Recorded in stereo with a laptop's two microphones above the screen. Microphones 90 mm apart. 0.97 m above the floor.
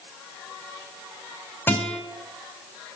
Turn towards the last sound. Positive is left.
turn(degrees=20)  # may be behind; listen again after turning